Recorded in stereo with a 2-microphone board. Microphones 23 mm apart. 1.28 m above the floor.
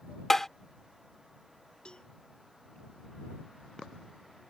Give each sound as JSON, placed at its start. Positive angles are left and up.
{"t": 0.3, "sound": "tapping", "side_deg": 15}
{"t": 1.9, "sound": "a cowbell", "side_deg": 40}